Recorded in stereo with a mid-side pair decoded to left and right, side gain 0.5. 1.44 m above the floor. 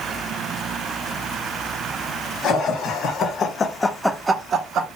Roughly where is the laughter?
Left.